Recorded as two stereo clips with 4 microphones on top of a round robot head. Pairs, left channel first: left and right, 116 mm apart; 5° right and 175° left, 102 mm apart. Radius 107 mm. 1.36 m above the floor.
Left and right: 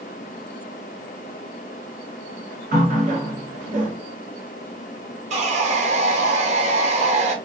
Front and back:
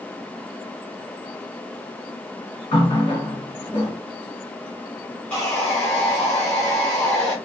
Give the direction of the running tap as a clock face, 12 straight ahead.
2 o'clock.